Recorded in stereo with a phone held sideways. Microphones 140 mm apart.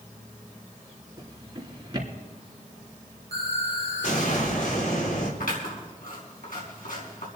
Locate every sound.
1.2 s a drawer: 30° right (ahead or behind), 3 m
3.3 s an explosion: 75° left (ahead or behind), 4.5 m
5.4 s scissors: 80° left, 5 m